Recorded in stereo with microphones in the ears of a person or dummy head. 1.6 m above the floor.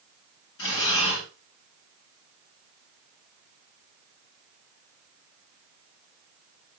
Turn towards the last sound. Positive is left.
turn(degrees=75)  # may be behind; listen again after turning